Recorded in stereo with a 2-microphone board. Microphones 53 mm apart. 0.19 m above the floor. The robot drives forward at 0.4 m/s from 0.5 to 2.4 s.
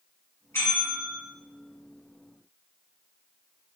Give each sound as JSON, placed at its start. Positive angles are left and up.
{"t": 0.5, "sound": "a bell", "side_deg": 50, "distance_m": 2.0}